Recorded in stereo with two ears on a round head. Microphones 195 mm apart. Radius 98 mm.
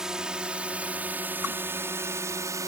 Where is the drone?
5° right (ahead or behind); by 2.7 s 15° right (ahead or behind).